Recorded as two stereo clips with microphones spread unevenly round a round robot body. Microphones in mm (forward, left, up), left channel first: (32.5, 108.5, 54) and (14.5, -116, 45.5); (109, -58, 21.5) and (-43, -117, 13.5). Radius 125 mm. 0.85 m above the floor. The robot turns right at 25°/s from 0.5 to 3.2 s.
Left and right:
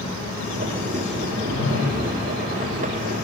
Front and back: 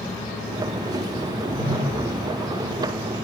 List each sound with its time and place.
1.3 s a whoosh: 75° left, 8.5 m; by 2.2 s 100° left, 8.5 m